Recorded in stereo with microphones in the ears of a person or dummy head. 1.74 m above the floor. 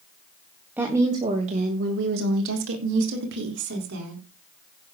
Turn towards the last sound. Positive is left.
turn(degrees=-65)  # may be behind; listen again after turning